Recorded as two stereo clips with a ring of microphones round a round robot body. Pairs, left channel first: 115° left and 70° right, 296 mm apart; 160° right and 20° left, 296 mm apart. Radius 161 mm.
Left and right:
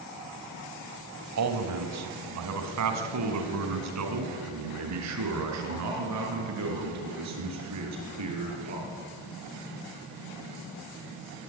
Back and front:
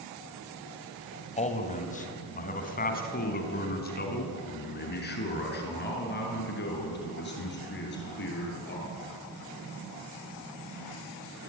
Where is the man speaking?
90° right, 2.5 m; by 8.8 s 105° right, 8 m.